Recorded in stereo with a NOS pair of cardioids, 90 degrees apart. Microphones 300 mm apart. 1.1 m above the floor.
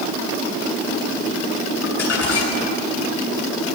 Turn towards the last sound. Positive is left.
turn(degrees=55)